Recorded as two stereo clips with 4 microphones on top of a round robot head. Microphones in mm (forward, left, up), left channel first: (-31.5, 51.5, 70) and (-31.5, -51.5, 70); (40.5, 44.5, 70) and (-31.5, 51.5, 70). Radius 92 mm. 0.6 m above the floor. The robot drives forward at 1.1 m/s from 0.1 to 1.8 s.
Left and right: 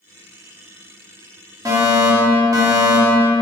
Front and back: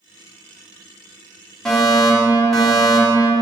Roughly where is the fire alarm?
Right.